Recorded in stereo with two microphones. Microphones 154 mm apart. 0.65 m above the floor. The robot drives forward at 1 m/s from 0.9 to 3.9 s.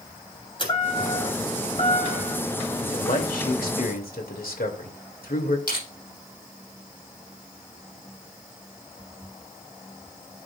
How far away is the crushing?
About 7 m.